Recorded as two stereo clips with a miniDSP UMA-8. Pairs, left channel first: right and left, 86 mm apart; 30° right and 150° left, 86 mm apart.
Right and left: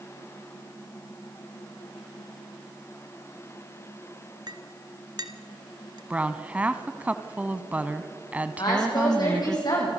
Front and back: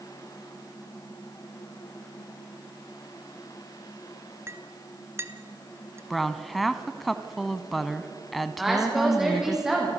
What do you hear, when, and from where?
4.5 s a clink: 100° left, 1.2 m
6.1 s a woman speaking: 60° left, 1.0 m
8.6 s a woman speaking: 125° right, 8 m